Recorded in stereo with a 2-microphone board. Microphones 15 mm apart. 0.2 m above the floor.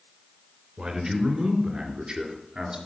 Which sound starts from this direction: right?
A man speaking, at 0.8 s.